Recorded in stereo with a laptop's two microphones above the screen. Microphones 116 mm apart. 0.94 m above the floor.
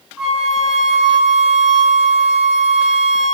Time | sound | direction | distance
0.2 | a flute | 5° right (ahead or behind) | 2 m